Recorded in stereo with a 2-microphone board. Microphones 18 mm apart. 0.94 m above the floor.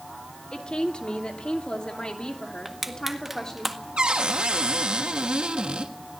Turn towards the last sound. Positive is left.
turn(degrees=-70)  # may be behind; listen again after turning